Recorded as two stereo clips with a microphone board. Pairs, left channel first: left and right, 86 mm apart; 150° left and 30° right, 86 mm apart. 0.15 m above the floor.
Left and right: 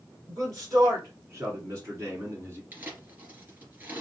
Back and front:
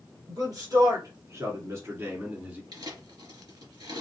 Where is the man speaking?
50° right, 2.5 m; by 2.6 s 85° right, 1.5 m.